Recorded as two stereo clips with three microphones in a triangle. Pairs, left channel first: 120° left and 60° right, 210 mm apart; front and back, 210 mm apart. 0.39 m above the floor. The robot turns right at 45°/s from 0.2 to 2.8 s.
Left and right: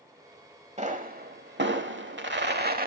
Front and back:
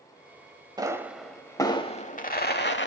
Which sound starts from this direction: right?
A pop, at 0.8 s.